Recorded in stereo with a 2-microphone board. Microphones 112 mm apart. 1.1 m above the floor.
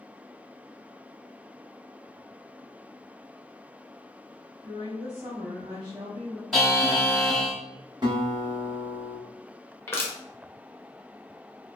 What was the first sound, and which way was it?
A woman speaking, 60° right (ahead or behind).